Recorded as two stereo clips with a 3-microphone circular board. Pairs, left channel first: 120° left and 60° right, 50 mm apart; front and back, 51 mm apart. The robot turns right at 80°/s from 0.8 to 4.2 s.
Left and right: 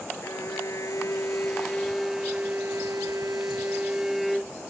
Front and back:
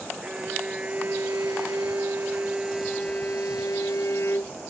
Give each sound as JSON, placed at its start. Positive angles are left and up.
{"t": 0.2, "sound": "a violin", "azimuth_deg": 110}